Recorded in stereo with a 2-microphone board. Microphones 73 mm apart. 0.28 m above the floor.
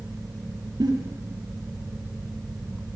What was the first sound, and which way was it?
A giggle, 60° right (ahead or behind).